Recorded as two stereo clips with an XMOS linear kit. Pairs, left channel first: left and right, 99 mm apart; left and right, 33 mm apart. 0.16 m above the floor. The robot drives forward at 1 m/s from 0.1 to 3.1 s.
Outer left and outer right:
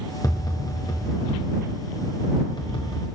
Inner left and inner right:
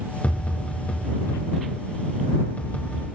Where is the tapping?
40° left (ahead or behind), 9.5 m; by 3.1 s 55° left (ahead or behind), 7.5 m.